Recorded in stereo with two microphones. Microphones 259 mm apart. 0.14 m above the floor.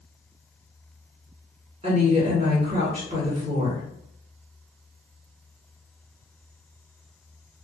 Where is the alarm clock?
I don't hear an alarm clock.